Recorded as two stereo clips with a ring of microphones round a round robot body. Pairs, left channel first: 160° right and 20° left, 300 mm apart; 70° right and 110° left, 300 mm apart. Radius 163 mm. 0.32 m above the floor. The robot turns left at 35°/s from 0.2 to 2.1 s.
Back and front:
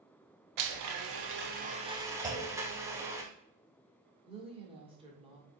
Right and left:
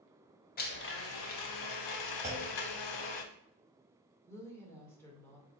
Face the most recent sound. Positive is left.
turn(degrees=-5)